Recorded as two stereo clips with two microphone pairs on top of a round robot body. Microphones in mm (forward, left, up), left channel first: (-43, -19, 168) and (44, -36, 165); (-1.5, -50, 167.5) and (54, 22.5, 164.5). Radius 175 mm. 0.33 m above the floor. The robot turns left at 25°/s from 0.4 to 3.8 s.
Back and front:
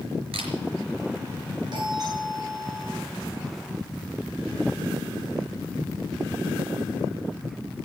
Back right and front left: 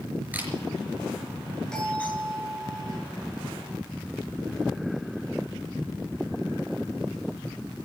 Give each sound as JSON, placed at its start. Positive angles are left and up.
{"t": 0.3, "sound": "a camera shutter", "azimuth_deg": -20, "distance_m": 5.0}
{"t": 1.7, "sound": "a doorbell", "azimuth_deg": -45, "distance_m": 9.0}